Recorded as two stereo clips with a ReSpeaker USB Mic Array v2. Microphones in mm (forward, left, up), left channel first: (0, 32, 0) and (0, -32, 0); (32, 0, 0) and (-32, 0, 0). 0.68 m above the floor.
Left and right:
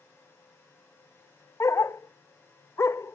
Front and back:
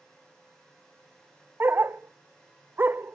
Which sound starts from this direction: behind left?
A dog barking, at 1.6 s.